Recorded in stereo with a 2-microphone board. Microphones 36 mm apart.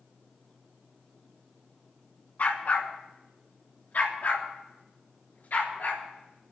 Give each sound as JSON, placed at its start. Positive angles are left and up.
{"t": 2.4, "sound": "a dog barking", "side_deg": 45, "distance_m": 2.0}